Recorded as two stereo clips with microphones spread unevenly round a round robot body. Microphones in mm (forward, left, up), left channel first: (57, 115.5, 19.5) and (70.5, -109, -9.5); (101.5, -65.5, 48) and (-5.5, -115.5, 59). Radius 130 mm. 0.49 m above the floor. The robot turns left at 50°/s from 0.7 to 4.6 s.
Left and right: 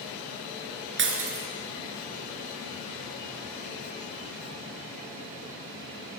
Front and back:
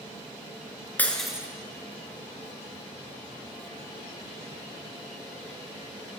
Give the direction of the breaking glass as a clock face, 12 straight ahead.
2 o'clock.